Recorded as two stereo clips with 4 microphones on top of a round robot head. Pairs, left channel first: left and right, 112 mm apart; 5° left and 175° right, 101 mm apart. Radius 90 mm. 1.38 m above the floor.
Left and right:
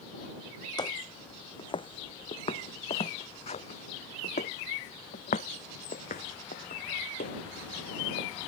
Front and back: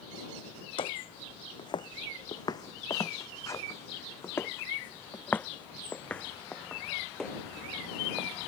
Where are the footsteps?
40° left; by 8.3 s 95° left.